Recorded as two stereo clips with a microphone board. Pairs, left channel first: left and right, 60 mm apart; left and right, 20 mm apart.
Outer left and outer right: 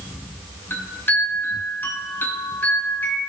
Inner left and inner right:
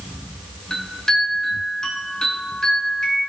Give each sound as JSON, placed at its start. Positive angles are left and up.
{"t": 0.7, "sound": "a chime", "side_deg": 35, "distance_m": 4.0}